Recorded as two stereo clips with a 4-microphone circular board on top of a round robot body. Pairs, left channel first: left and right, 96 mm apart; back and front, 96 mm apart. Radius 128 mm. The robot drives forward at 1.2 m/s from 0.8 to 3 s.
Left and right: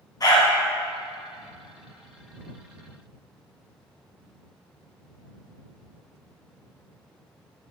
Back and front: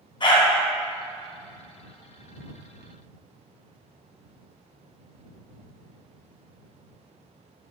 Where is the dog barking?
140° left, 2.5 m.